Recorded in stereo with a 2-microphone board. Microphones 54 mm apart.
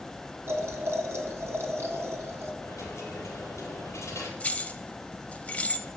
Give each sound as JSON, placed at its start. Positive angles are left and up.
{"t": 0.5, "sound": "boiling", "side_deg": -55, "distance_m": 1.5}
{"t": 2.6, "sound": "a dropped coin", "side_deg": 60, "distance_m": 3.0}
{"t": 4.4, "sound": "keys jangling", "side_deg": 25, "distance_m": 0.6}